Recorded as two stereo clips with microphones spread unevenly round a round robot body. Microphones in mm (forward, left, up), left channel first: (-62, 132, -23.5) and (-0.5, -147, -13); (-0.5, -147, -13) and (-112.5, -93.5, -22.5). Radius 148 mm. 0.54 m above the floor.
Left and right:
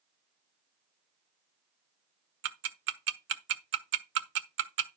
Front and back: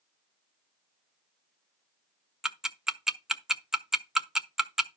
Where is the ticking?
120° right, 1.3 m.